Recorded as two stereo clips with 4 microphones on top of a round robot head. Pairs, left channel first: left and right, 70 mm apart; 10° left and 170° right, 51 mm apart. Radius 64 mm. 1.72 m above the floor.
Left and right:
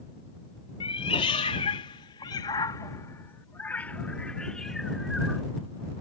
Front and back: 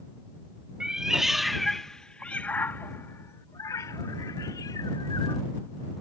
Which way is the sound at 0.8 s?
115° left.